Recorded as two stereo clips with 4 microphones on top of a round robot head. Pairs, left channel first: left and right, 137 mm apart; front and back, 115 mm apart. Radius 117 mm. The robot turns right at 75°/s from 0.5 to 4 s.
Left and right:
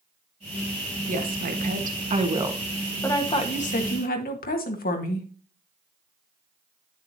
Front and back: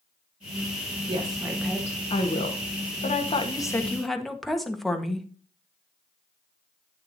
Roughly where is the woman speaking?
Behind right.